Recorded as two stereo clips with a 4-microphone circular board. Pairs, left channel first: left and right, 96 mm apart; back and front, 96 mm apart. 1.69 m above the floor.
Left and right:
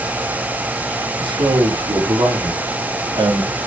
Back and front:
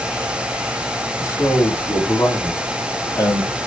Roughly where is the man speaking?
Behind right.